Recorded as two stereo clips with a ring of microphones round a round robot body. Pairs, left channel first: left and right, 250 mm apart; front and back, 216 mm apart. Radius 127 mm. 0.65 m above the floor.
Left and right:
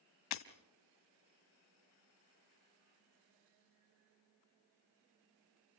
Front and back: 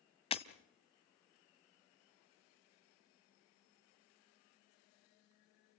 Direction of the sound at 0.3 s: 65° left.